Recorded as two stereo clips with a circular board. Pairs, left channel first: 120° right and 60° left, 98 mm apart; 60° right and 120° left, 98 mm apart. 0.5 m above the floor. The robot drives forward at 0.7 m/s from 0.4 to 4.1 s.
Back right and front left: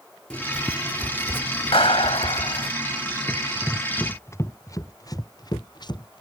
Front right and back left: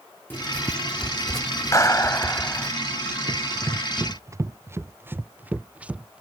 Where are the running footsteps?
160° left; by 6.2 s 160° right.